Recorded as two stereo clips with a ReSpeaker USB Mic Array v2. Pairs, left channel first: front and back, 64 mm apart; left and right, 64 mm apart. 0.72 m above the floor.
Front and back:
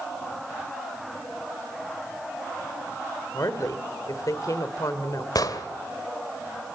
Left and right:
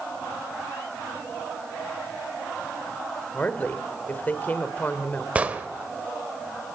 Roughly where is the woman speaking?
Ahead left.